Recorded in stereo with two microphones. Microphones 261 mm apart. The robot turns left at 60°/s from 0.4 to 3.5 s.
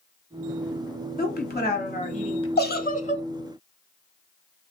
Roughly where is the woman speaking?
Left.